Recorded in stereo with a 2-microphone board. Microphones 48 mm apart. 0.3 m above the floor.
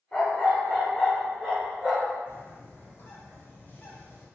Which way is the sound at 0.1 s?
20° left (ahead or behind).